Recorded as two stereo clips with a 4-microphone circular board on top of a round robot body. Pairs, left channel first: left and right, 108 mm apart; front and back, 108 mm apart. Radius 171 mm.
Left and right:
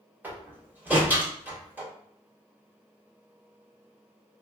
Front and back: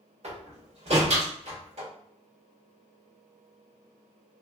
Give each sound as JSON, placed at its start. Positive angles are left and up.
{"t": 0.2, "sound": "a door slam", "azimuth_deg": -165, "distance_m": 2.5}